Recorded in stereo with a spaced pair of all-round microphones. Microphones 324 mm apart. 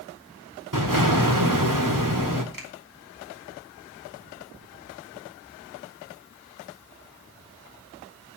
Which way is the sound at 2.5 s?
75° right (ahead or behind).